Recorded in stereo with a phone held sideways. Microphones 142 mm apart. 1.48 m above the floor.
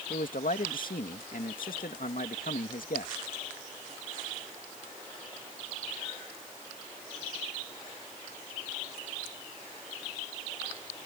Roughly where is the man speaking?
Left.